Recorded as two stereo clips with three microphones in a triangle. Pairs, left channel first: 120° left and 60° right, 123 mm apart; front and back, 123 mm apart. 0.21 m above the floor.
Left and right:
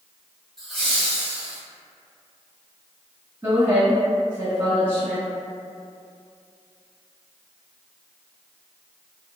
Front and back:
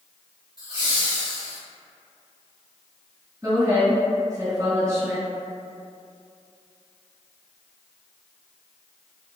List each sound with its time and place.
0.6 s laughter: 145° right, 1.3 m; by 1.6 s 145° left, 1.1 m
3.4 s a woman speaking: 120° right, 1.9 m